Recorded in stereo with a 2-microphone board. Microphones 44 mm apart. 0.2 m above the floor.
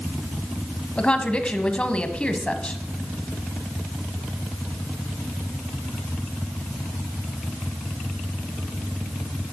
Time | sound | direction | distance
1.0 | a woman speaking | 25° left (ahead or behind) | 1.1 m